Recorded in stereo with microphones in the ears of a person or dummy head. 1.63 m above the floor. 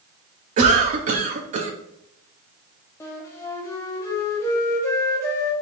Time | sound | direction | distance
0.6 | a cough | 40° right (ahead or behind) | 0.7 m
3.0 | a flute | 15° left (ahead or behind) | 0.8 m